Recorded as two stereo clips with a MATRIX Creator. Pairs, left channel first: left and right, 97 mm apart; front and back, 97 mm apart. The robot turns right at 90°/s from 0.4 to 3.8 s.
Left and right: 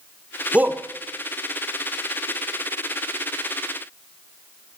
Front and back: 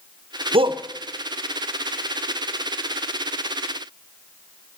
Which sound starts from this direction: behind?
A shout, at 0.5 s.